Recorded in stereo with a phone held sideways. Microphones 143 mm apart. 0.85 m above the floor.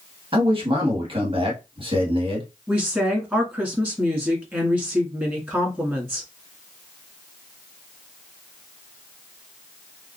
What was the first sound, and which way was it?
A man speaking, 40° right (ahead or behind).